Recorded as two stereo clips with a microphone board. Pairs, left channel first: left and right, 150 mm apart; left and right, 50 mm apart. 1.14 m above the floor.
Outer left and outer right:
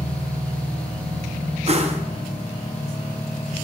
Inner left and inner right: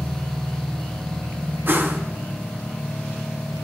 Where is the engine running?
20° left (ahead or behind), 0.8 m.